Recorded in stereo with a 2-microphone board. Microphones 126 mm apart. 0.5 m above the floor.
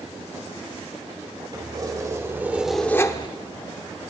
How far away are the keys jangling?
About 1.7 m.